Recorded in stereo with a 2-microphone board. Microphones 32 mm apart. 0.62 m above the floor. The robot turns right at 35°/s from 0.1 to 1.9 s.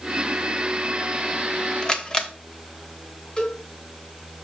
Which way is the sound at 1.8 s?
25° left (ahead or behind).